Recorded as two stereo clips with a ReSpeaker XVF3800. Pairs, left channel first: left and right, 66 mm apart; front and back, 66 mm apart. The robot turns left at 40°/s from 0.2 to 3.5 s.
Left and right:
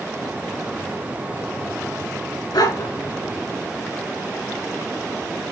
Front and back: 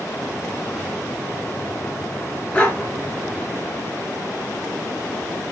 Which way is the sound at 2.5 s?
75° left.